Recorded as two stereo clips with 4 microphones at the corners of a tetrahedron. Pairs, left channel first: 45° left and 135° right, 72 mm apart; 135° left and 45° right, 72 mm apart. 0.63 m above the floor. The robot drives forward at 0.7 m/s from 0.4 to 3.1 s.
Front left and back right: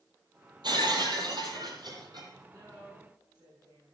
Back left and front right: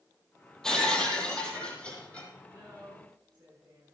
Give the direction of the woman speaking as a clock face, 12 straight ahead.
3 o'clock.